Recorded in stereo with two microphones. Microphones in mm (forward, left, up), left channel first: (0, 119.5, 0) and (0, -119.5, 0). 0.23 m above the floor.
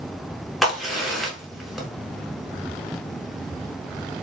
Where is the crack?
Centre (ahead or behind), 1.1 m.